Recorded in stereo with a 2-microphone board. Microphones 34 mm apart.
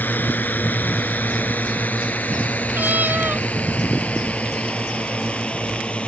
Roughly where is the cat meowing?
Right.